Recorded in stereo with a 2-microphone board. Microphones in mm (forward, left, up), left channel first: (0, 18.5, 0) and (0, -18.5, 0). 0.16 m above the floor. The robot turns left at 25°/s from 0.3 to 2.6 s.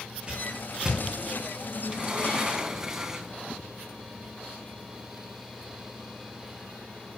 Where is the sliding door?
20° right (ahead or behind), 1.4 m; by 3.4 s 15° right (ahead or behind), 1.4 m.